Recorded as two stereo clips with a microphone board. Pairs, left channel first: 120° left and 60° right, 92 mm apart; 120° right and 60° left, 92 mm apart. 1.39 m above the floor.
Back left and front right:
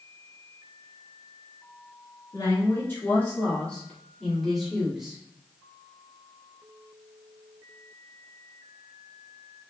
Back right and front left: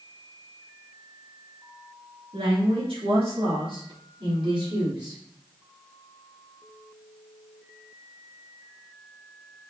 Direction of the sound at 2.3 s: 65° left.